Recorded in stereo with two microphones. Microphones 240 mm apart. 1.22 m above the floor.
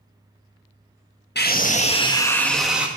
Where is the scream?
45° left (ahead or behind), 1.4 m; by 2.9 s 5° right (ahead or behind), 1.7 m.